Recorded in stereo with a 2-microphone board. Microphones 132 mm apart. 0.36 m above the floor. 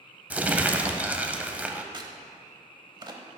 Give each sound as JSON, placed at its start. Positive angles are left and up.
{"t": 0.3, "sound": "crumpling", "side_deg": -10, "distance_m": 0.5}
{"t": 1.9, "sound": "a crack", "side_deg": -35, "distance_m": 0.8}